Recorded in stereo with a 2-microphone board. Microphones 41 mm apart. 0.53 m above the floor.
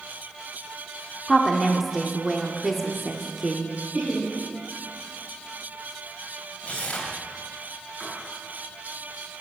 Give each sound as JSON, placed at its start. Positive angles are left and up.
{"t": 1.3, "sound": "a woman speaking", "side_deg": -10, "distance_m": 1.3}
{"t": 3.9, "sound": "laughter", "side_deg": -5, "distance_m": 5.5}
{"t": 6.6, "sound": "tearing paper", "side_deg": 25, "distance_m": 3.0}
{"t": 8.0, "sound": "writing", "side_deg": -15, "distance_m": 5.5}